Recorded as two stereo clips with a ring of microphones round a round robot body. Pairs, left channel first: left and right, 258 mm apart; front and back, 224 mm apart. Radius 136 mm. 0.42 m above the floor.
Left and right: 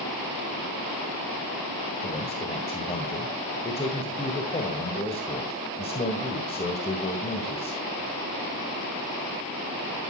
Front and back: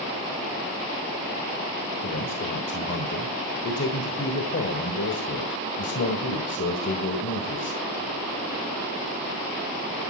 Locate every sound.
2.0 s a man speaking: 25° left, 1.9 m